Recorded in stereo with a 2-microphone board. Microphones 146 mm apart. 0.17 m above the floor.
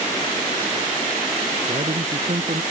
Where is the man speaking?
55° right (ahead or behind).